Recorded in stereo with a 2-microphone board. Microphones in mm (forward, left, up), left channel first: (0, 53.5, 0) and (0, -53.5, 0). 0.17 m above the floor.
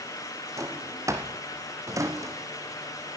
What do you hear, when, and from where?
0.6 s a drawer: 30° right (ahead or behind), 2 m